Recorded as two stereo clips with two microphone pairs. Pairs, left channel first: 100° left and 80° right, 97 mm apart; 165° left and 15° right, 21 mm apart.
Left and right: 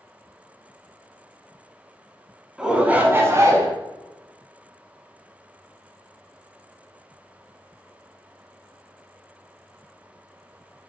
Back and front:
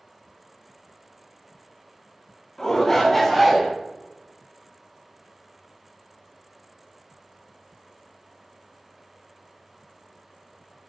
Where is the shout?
160° right, 1.4 m; by 3.7 s 95° right, 1.5 m.